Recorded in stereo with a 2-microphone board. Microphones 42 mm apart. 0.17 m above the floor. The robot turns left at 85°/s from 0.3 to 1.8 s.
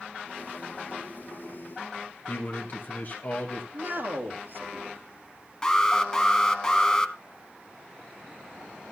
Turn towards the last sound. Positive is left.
turn(degrees=15)  # may be behind; listen again after turning